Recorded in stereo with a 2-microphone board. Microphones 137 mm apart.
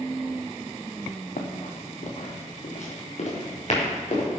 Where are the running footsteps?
65° left (ahead or behind), 2 m; by 4.3 s 55° left (ahead or behind), 5.5 m.